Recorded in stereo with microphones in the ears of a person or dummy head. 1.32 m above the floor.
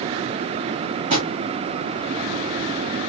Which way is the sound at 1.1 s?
40° right (ahead or behind).